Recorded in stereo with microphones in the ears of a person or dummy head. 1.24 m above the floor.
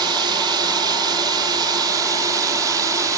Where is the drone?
25° right (ahead or behind); by 3.2 s 20° right (ahead or behind).